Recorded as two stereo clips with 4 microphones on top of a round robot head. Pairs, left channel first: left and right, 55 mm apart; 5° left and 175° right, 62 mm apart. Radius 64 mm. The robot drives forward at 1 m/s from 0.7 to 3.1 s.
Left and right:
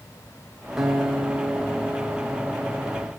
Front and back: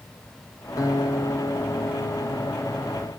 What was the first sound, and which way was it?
A guitar, 10° right.